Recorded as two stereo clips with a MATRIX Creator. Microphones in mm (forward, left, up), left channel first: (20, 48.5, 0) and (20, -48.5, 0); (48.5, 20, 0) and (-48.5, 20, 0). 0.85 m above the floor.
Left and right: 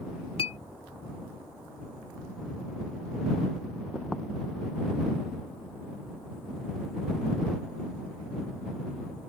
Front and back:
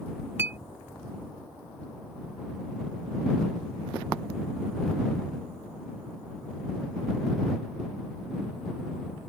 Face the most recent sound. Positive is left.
turn(degrees=110)